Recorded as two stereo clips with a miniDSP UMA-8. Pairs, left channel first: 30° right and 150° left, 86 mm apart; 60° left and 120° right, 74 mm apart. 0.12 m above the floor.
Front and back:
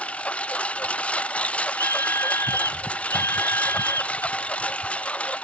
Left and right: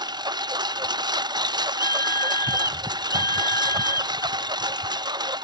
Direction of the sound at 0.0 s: 105° right.